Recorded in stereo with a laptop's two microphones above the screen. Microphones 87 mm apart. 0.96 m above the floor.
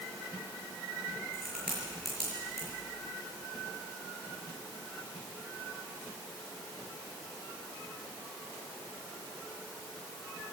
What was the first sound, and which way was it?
A crack, 5° right (ahead or behind).